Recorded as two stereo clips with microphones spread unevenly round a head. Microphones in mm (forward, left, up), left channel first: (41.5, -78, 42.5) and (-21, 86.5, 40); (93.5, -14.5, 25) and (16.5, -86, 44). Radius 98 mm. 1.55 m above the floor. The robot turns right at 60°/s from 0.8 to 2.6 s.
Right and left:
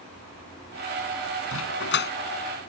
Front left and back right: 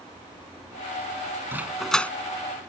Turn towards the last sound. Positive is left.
turn(degrees=-5)